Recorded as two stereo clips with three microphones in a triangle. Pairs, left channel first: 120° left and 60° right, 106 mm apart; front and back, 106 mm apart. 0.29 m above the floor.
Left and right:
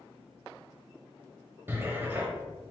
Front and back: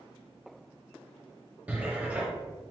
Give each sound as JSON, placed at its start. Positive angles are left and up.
{"t": 1.7, "sound": "a cupboard door", "azimuth_deg": -115, "distance_m": 0.7}